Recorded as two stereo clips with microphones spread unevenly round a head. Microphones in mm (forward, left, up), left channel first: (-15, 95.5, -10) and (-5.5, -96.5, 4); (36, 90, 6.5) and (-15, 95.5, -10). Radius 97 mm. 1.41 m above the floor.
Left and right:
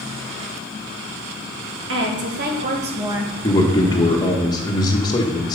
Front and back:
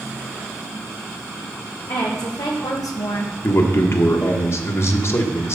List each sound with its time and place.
1.9 s a woman speaking: 55° right, 2.5 m; by 3.3 s straight ahead, 1.2 m
3.4 s a man speaking: 20° left, 1.5 m